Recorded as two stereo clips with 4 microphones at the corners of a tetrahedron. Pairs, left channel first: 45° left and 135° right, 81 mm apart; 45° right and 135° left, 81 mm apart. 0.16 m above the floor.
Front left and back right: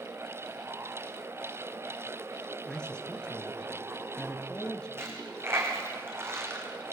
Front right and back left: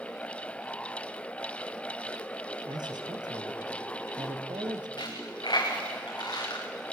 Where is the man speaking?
125° left, 3 m.